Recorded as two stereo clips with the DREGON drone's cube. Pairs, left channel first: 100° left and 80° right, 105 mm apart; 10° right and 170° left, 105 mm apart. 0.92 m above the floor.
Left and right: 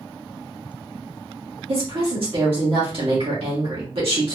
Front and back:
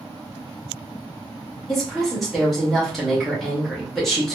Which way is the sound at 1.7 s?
100° right.